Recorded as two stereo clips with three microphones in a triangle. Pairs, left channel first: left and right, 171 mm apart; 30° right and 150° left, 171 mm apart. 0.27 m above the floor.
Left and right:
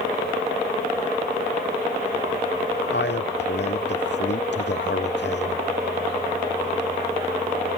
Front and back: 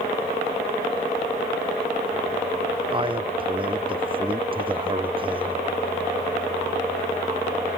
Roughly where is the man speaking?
Left.